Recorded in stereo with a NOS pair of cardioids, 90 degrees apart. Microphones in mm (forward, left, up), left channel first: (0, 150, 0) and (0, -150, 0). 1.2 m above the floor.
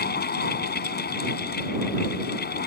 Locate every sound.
0.0 s a fan: 35° left